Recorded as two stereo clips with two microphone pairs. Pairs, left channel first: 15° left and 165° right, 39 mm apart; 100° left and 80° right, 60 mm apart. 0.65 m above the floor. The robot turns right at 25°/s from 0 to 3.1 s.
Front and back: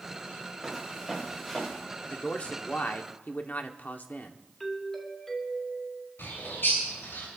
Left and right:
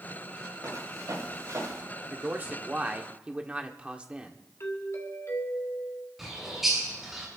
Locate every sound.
0.6 s footsteps: 75° right, 7 m; by 1.8 s 60° right, 7 m
2.0 s a man speaking: 40° right, 1.4 m; by 4.4 s 15° right, 1.4 m
4.6 s a doorbell: 95° left, 2.5 m
6.2 s a bird: 5° left, 7.5 m